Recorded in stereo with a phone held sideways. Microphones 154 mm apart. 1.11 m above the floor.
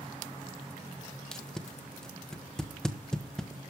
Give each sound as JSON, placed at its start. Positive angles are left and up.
{"t": 1.3, "sound": "tape being pulled", "side_deg": 5, "distance_m": 1.2}